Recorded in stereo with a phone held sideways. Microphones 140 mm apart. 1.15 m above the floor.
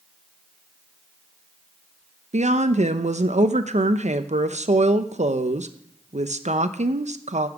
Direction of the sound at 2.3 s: 55° right (ahead or behind).